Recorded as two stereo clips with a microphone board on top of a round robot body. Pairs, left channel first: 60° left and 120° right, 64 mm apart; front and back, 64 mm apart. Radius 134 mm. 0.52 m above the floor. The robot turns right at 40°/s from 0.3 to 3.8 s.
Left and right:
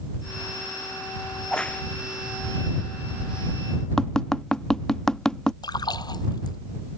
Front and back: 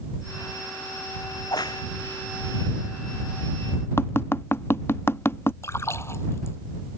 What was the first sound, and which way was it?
A crack, 25° right.